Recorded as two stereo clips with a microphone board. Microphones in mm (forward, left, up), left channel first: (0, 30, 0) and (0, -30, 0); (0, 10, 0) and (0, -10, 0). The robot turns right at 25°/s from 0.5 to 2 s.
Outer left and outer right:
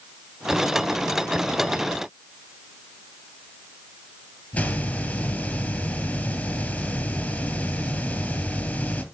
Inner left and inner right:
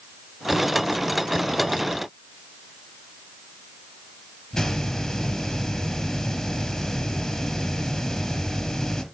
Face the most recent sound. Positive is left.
turn(degrees=20)  # may be behind; listen again after turning